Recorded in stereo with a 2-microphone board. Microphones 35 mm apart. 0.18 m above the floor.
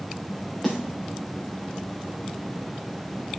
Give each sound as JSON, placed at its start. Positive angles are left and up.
{"t": 0.6, "sound": "a snare drum", "side_deg": 0, "distance_m": 4.0}